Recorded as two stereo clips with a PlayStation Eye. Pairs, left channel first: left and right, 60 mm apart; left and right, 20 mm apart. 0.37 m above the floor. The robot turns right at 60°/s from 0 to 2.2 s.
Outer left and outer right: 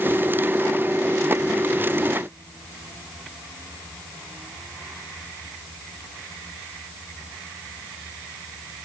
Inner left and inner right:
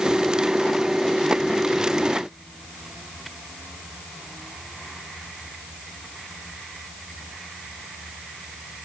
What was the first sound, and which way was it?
Only background noise.